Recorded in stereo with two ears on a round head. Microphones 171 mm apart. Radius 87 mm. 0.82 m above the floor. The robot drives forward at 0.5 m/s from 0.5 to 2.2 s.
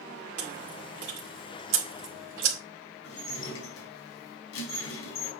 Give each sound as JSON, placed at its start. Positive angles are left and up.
{"t": 0.4, "sound": "chewing", "side_deg": -60, "distance_m": 2.5}
{"t": 3.0, "sound": "dishes clattering", "side_deg": 85, "distance_m": 4.5}